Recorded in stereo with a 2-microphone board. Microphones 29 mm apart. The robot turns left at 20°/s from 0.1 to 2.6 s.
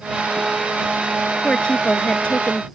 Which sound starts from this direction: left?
A woman speaking, at 1.4 s.